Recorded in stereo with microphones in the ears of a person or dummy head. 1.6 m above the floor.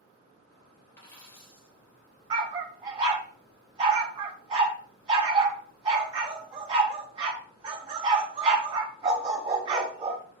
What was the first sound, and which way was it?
A dropped coin, 20° left (ahead or behind).